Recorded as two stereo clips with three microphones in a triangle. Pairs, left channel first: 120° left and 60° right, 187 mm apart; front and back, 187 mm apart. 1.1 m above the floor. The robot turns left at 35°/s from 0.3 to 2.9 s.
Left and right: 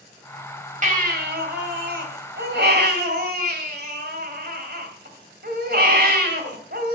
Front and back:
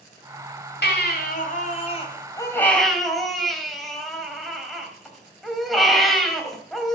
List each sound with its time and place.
0.8 s a baby crying: 15° right, 2.5 m; by 7.0 s 90° right, 2.5 m